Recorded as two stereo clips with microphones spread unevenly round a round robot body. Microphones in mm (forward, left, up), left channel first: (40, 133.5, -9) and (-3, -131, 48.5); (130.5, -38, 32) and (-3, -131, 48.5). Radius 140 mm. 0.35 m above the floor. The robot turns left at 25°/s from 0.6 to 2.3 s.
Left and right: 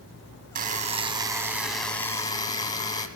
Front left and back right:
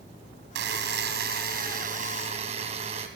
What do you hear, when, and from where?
0.6 s a buzzer: 165° right, 2.5 m; by 3.1 s 155° left, 2.5 m